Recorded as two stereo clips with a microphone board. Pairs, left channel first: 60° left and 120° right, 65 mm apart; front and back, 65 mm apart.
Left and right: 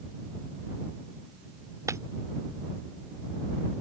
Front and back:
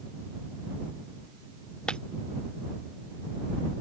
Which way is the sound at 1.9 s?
80° right.